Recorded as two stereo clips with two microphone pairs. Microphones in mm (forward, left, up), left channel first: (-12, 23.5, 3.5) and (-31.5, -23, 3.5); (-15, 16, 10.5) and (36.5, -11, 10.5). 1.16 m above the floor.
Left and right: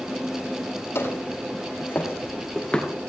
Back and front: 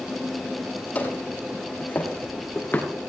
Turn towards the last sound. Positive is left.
turn(degrees=130)